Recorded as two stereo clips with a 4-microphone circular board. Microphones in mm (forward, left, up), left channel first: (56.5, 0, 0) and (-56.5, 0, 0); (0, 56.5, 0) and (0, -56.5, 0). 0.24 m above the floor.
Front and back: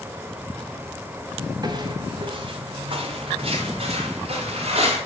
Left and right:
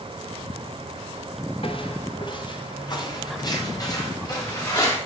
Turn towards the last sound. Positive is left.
turn(degrees=150)